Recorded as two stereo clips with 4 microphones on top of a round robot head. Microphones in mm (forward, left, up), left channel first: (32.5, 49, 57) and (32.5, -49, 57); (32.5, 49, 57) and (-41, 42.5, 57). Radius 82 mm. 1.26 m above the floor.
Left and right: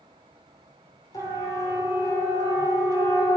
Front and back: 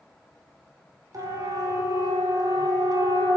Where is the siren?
145° left, 5.5 m; by 3.4 s 160° left, 5 m.